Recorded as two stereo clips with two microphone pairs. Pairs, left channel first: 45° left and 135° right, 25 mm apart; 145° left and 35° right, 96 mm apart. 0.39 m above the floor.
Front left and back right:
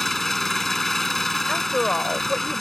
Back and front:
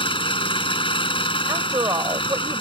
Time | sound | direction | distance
0.0 | an engine running | 125° left | ?
1.5 | a woman speaking | straight ahead | ?